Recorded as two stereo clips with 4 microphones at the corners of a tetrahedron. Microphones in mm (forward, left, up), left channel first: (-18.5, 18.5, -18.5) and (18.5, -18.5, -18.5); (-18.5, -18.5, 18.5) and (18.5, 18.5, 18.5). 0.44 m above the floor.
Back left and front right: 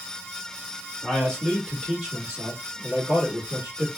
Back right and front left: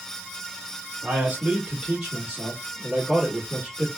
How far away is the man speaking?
About 1.5 m.